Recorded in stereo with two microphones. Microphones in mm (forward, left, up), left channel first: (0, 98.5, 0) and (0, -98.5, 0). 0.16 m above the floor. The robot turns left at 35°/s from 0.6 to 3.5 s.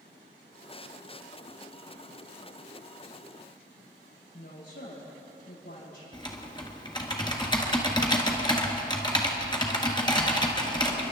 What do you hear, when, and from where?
4.3 s a woman speaking: 65° left (ahead or behind), 6.5 m
6.1 s typing on a keyboard: 20° left (ahead or behind), 1.6 m